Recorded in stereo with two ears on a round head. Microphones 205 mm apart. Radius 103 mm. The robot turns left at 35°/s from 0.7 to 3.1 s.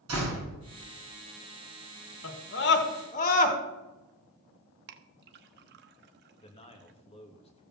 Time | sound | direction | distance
0.1 | a door slam | 75° right (ahead or behind) | 6 m
2.2 | a scream | 65° left (ahead or behind) | 1.9 m
4.9 | a clink | 45° right (ahead or behind) | 0.8 m
6.4 | a man speaking | 25° left (ahead or behind) | 2.5 m